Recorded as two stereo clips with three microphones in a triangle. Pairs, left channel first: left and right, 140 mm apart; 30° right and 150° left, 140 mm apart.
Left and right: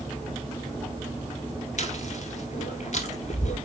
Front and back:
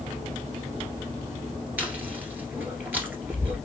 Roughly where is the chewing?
Left.